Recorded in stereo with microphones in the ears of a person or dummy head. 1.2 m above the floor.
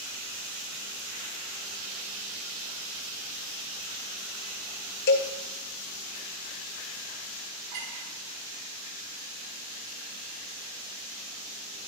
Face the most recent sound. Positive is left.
turn(degrees=-45)  # may be behind; listen again after turning